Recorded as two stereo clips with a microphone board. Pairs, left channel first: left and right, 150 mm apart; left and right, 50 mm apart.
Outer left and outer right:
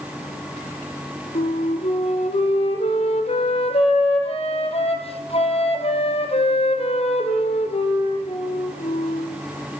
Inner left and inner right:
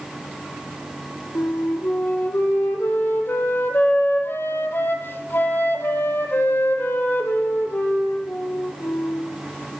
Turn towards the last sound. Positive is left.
turn(degrees=45)  # may be behind; listen again after turning